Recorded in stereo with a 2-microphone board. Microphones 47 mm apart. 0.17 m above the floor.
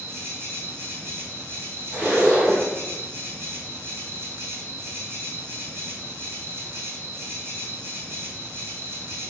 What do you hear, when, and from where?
0.0 s an insect: 50° right (ahead or behind), 1.5 m
1.9 s a zipper: 25° right (ahead or behind), 1.8 m